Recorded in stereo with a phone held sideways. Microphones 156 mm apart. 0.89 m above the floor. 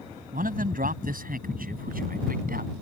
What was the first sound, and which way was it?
A man speaking, 70° right (ahead or behind).